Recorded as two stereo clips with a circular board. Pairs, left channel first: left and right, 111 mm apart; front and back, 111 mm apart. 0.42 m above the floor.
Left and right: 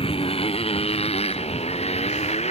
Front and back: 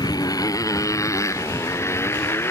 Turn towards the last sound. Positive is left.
turn(degrees=70)